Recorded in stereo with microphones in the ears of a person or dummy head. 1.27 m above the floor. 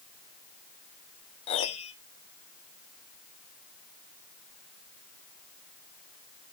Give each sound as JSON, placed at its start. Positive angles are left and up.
{"t": 1.5, "sound": "a piano", "side_deg": 30, "distance_m": 0.8}